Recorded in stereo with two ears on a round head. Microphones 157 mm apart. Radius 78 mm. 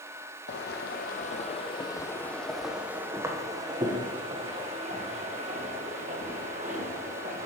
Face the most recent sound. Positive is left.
turn(degrees=-45)  # may be behind; listen again after turning